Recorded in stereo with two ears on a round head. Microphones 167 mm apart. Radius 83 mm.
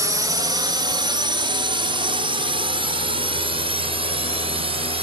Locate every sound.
0.0 s a drone: 15° right (ahead or behind); by 5.0 s 30° right (ahead or behind)